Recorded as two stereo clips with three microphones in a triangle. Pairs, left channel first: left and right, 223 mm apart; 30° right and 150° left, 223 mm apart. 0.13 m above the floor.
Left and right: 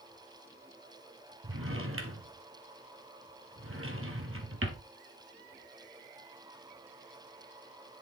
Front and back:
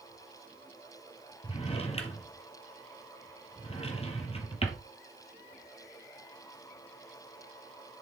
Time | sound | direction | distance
1.4 | a drawer | 95° right | 1.5 m